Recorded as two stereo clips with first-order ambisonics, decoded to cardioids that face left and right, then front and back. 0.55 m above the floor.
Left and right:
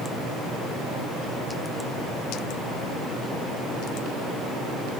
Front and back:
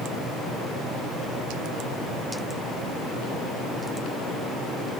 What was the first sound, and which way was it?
Only background noise.